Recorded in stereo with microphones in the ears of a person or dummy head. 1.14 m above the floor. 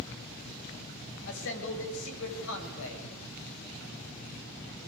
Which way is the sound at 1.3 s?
70° left (ahead or behind).